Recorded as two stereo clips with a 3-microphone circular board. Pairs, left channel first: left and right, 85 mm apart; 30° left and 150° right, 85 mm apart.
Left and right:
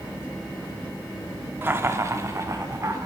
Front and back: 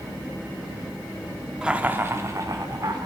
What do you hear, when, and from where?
1.6 s laughter: 80° right, 0.6 m; by 3.1 s 130° right, 1.1 m